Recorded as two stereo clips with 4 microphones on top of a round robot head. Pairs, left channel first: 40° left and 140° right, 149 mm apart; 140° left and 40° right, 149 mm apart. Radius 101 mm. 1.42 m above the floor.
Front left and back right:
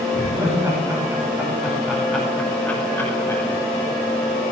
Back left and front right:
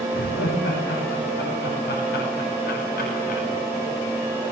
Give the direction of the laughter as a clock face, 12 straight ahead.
7 o'clock.